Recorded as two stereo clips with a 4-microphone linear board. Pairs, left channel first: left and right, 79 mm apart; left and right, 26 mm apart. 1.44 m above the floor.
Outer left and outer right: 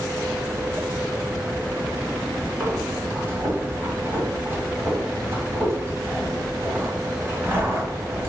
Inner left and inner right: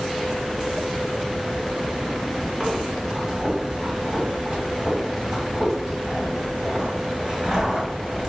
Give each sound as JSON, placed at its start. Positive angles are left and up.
{"t": 2.6, "sound": "breathing", "side_deg": -30, "distance_m": 1.6}